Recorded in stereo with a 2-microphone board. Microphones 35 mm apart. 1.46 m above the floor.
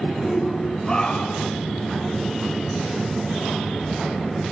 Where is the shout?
10° left (ahead or behind), 5 m; by 1.5 s 25° left (ahead or behind), 6.5 m.